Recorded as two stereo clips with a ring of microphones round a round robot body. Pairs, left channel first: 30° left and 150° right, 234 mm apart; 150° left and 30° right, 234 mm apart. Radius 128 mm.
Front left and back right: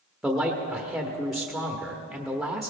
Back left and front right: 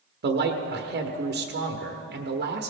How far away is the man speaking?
About 1.2 m.